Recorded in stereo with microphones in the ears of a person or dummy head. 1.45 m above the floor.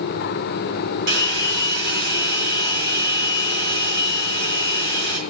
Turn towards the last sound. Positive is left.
turn(degrees=-60)  # may be behind; listen again after turning